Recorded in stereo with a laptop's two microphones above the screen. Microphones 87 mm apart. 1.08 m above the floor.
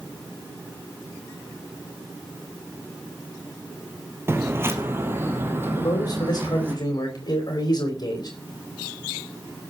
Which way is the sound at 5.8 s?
50° left (ahead or behind).